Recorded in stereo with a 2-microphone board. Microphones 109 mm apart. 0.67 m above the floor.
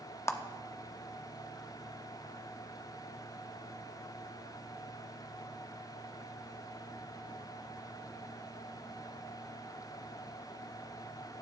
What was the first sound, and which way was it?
A clap, 25° left (ahead or behind).